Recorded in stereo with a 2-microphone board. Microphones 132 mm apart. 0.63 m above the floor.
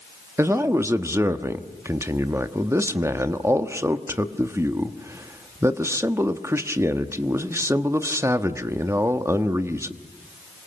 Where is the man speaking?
20° right (ahead or behind), 1.2 m.